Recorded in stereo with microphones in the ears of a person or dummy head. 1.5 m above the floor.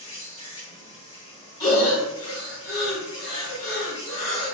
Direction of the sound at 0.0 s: 30° left (ahead or behind).